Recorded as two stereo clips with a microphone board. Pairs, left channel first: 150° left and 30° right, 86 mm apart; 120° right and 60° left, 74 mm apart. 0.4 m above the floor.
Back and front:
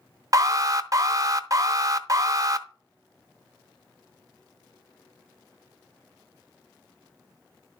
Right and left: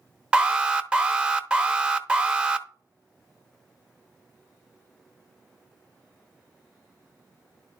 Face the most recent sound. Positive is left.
turn(degrees=-10)